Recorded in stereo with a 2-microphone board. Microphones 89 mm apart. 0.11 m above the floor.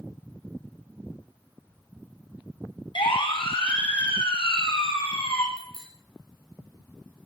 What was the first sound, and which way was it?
A siren, 75° left (ahead or behind).